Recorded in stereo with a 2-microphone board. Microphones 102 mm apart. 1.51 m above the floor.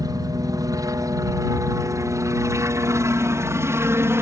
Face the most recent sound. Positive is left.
turn(degrees=-25)  # may be behind; listen again after turning